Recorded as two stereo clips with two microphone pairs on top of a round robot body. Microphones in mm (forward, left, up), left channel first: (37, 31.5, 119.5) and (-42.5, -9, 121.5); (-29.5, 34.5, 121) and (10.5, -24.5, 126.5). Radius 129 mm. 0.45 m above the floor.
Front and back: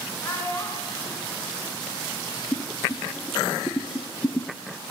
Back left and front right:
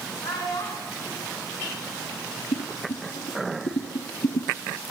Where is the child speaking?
95° left, 5 m.